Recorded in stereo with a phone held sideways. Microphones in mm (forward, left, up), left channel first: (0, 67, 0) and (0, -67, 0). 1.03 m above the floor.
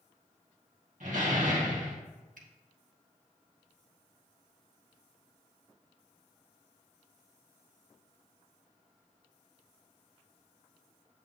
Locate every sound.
1.0 s a door slam: 70° right (ahead or behind), 1.6 m
2.4 s a finger snap: 85° right, 1.1 m